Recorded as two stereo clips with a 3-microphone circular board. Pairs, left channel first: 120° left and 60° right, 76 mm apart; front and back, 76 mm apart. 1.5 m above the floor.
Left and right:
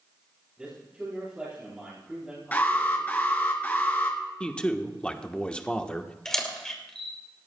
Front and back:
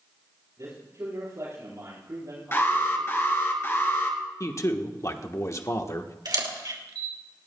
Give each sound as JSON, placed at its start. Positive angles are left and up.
{"t": 0.6, "sound": "a man speaking", "azimuth_deg": -135, "distance_m": 8.5}
{"t": 2.5, "sound": "an alarm", "azimuth_deg": 55, "distance_m": 2.5}
{"t": 4.4, "sound": "a man speaking", "azimuth_deg": 45, "distance_m": 1.1}
{"t": 6.2, "sound": "a camera shutter", "azimuth_deg": -155, "distance_m": 2.5}